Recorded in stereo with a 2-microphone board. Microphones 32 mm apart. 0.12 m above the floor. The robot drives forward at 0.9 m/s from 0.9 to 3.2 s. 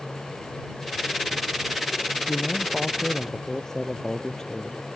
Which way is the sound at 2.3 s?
10° left (ahead or behind).